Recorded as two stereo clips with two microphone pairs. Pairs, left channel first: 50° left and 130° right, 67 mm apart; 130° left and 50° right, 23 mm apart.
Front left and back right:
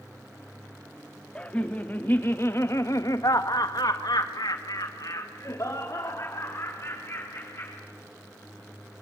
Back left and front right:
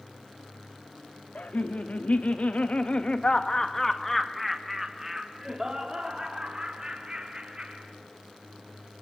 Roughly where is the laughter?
Behind left.